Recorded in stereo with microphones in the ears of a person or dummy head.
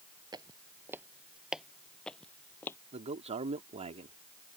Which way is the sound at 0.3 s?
20° right (ahead or behind).